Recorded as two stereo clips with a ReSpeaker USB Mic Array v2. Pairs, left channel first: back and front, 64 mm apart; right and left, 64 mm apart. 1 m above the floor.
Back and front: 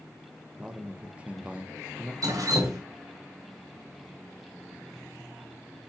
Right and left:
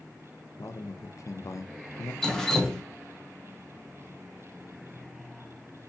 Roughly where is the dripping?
Ahead.